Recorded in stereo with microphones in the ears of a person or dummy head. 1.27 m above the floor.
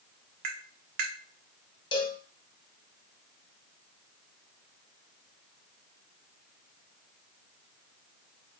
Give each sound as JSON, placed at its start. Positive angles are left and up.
{"t": 0.4, "sound": "tapping", "side_deg": -45, "distance_m": 1.0}
{"t": 1.9, "sound": "a cowbell", "side_deg": 25, "distance_m": 1.1}